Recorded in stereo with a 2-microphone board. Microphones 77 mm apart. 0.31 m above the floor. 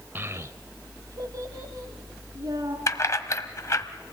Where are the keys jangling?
45° left (ahead or behind), 1.1 m.